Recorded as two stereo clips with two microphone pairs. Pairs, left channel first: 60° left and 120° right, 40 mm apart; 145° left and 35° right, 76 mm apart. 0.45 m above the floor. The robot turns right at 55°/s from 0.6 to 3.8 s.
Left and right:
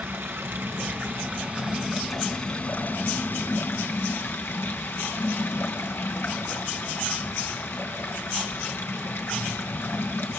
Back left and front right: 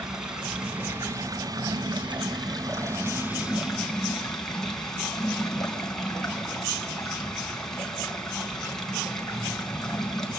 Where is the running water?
115° right, 3.5 m; by 10.4 s 60° left, 3.5 m.